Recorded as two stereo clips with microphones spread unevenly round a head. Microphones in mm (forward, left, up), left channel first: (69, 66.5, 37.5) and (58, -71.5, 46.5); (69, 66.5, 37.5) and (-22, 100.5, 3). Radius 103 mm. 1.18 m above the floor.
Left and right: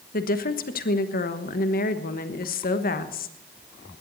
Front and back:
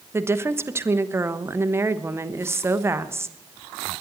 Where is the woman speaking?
100° left, 1.2 m.